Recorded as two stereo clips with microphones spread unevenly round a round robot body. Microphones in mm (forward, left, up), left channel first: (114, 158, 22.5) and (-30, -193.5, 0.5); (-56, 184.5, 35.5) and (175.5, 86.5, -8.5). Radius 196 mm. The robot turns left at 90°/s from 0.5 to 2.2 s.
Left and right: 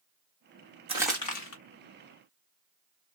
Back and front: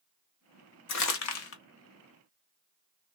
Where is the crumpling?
175° left, 0.9 m; by 1.6 s 115° left, 0.9 m.